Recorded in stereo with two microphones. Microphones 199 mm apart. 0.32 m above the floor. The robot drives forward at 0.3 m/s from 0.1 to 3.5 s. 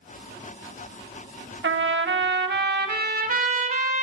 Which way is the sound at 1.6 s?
70° right (ahead or behind).